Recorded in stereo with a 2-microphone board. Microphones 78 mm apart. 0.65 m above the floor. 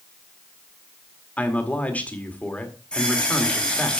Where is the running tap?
10° left (ahead or behind), 2.5 m.